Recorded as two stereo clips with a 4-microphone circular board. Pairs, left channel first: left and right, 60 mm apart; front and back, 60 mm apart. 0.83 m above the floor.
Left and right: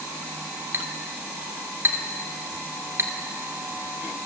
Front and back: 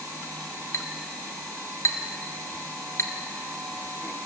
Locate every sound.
0.7 s a clink: 40° right, 1.8 m